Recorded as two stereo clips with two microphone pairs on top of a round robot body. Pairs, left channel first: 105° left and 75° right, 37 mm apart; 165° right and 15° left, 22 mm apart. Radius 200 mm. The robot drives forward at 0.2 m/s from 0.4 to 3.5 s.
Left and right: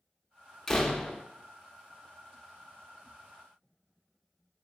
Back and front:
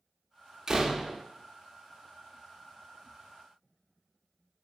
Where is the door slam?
55° left, 0.7 m; by 1.2 s 75° left, 0.7 m.